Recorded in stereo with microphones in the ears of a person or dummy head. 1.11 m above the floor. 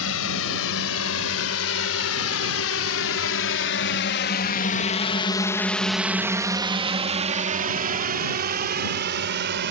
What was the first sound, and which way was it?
A drone, 75° left (ahead or behind).